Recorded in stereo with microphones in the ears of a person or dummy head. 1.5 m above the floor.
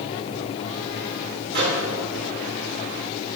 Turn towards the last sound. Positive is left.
turn(degrees=-55)  # may be behind; listen again after turning